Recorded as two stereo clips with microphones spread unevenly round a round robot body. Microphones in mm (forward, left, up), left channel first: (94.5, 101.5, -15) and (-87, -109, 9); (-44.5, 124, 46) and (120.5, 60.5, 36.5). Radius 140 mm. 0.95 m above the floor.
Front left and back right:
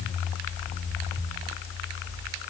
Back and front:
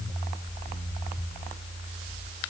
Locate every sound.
Only background noise.